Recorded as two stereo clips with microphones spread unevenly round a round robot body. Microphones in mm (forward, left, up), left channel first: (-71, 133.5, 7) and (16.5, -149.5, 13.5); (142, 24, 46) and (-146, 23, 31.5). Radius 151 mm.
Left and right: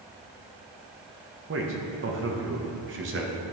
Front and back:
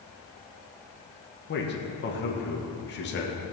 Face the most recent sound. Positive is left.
turn(degrees=-40)